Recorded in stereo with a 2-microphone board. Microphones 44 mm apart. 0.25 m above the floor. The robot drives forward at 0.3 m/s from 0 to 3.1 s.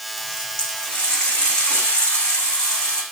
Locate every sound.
0.2 s a running tap: 25° left (ahead or behind), 9 m; by 3.0 s 20° left (ahead or behind), 9.5 m